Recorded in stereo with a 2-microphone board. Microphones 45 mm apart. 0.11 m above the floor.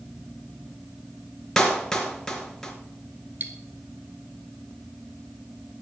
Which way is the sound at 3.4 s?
45° right (ahead or behind).